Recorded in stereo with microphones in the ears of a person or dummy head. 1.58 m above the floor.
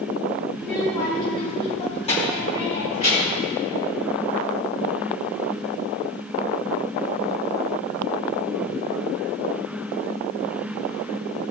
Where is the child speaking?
10° left (ahead or behind), 3 m; by 3.5 s 45° left (ahead or behind), 6 m.